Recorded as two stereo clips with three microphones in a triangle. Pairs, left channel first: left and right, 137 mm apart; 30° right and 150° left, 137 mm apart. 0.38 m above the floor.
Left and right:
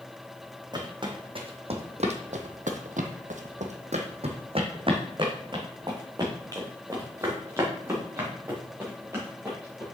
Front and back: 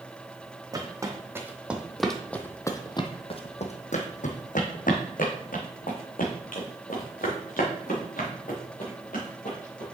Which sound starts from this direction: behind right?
Footsteps, at 0.7 s.